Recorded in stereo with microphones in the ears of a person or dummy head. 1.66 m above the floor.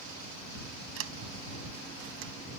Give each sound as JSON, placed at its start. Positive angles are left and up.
{"t": 1.0, "sound": "a sliding door", "side_deg": -80}